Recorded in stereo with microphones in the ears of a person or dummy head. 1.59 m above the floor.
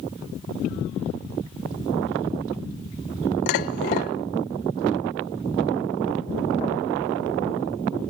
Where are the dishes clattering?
45° left (ahead or behind), 0.7 m.